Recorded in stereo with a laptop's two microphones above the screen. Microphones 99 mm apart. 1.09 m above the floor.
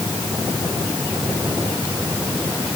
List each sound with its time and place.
Only background noise.